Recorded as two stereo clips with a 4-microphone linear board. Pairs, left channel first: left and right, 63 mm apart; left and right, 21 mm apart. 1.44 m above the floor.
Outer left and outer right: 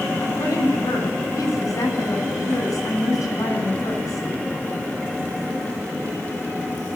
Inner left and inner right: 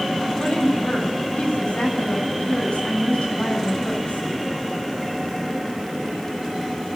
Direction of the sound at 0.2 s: 60° left (ahead or behind).